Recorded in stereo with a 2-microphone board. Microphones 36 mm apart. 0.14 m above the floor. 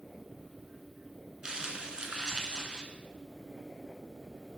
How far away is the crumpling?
About 0.6 m.